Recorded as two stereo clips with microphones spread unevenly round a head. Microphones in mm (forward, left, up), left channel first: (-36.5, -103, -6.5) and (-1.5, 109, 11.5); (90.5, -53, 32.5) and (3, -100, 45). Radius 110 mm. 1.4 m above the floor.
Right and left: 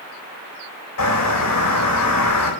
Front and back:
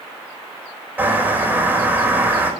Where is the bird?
85° right, 4.5 m.